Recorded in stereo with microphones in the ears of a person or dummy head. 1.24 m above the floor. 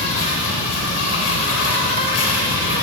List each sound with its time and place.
0.0 s an insect: 80° left, 3.5 m